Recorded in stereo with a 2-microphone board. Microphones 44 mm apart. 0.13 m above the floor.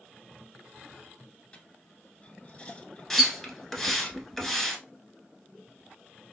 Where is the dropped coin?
25° left (ahead or behind), 0.8 m.